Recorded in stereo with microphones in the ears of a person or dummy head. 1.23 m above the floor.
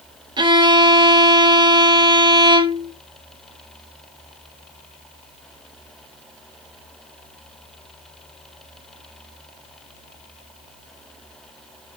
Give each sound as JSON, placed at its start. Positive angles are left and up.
{"t": 0.4, "sound": "a violin", "side_deg": -25, "distance_m": 1.8}